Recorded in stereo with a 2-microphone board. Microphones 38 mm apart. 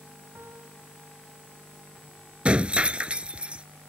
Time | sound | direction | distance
0.3 | a piano | 85° right | ?
2.5 | breaking glass | 25° right (ahead or behind) | ?